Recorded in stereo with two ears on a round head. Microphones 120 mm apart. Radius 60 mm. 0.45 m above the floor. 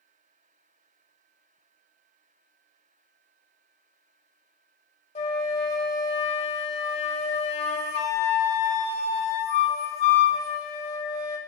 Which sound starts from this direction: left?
A flute, at 5.2 s.